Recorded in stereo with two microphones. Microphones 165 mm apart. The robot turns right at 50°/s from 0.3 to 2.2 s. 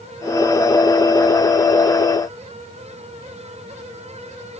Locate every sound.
Only background noise.